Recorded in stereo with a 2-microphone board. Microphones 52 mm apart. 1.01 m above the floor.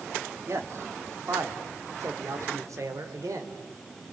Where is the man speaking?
55° right (ahead or behind), 2 m; by 3.5 s 85° right, 3.5 m.